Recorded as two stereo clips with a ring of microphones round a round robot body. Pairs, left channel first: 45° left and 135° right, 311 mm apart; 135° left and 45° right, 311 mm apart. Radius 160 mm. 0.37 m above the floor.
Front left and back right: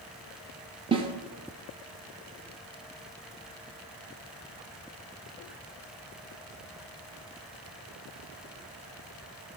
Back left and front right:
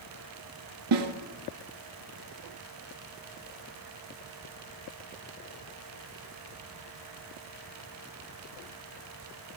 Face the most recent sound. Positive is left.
turn(degrees=-65)